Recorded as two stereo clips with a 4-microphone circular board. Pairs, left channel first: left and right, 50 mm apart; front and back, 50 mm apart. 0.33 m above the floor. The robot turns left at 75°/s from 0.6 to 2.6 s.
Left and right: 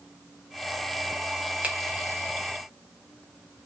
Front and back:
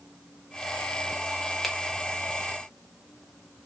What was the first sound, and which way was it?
A finger snap, 90° right.